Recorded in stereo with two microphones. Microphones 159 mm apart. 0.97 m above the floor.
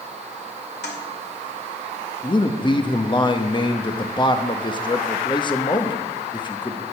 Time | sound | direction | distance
0.8 | a toilet flushing | 85° left | 2 m
2.2 | a man speaking | 30° left (ahead or behind) | 1.0 m